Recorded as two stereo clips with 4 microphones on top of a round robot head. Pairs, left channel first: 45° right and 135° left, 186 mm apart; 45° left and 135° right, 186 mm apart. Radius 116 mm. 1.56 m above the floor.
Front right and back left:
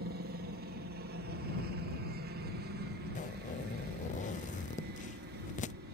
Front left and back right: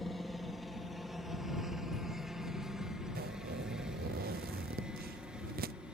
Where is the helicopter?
135° left; by 5.9 s 140° left.